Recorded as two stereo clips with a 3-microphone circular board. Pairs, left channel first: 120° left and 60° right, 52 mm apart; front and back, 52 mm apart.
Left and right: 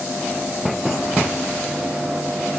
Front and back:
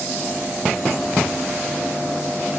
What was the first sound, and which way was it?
Only background noise.